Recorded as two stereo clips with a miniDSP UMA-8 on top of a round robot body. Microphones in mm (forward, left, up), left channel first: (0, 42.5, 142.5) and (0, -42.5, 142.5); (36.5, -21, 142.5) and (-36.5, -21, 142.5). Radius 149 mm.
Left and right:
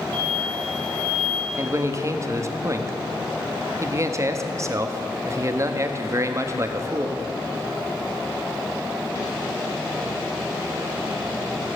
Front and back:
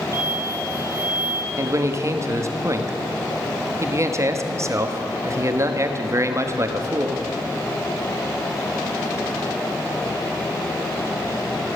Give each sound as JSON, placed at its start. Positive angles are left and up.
{"t": 0.1, "sound": "an explosion", "azimuth_deg": -135, "distance_m": 0.6}
{"t": 1.6, "sound": "a man speaking", "azimuth_deg": -135, "distance_m": 1.4}